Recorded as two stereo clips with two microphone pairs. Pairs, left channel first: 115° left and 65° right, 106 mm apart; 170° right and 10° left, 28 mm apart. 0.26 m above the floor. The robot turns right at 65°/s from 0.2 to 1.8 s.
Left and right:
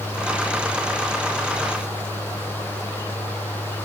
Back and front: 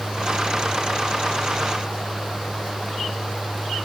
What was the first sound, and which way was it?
Only background noise.